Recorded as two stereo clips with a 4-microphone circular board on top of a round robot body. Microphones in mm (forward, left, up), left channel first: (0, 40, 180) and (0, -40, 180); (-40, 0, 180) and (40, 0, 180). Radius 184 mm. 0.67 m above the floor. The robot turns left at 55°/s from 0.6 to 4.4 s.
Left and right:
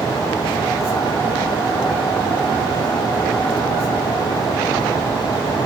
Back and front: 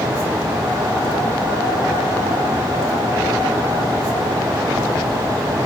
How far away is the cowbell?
No cowbell in this recording.